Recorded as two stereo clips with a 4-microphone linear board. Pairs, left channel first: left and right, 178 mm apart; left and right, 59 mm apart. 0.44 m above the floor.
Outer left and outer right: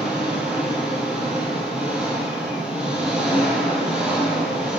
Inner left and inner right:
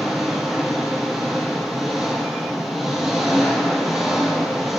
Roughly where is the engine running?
Centre.